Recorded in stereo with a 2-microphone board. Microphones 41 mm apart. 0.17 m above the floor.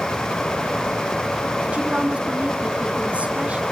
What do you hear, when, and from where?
1.7 s a woman speaking: 35° right (ahead or behind), 1.8 m